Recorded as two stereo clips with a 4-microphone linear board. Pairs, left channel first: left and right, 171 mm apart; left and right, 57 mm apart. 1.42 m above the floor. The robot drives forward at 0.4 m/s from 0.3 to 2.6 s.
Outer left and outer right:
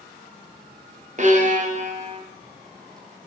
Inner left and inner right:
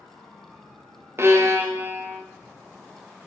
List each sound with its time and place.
1.2 s a violin: 45° right (ahead or behind), 0.5 m; by 2.2 s 40° right (ahead or behind), 0.6 m